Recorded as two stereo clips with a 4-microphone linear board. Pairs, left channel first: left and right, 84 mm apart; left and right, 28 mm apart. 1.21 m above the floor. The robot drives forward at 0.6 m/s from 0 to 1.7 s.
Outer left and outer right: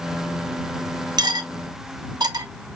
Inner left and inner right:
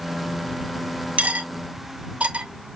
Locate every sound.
1.2 s cutlery clinking: 60° right (ahead or behind), 0.5 m